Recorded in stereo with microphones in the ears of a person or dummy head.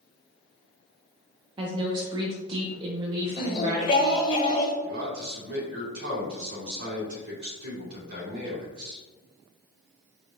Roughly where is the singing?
Left.